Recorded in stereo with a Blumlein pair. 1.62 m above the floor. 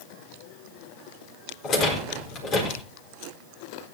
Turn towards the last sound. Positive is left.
turn(degrees=30)